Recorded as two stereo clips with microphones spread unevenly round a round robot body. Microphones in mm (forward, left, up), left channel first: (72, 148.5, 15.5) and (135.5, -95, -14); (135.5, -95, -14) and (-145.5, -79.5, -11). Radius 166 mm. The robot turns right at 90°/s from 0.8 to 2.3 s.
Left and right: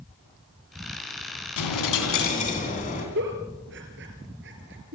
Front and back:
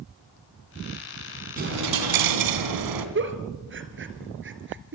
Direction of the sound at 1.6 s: 110° left.